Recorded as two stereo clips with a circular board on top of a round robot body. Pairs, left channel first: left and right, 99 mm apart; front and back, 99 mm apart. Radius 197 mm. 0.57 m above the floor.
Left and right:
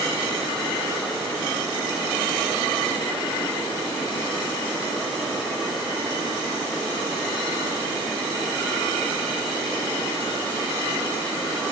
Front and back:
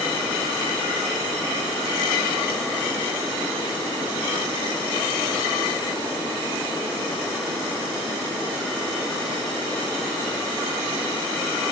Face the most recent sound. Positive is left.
No sound to turn to.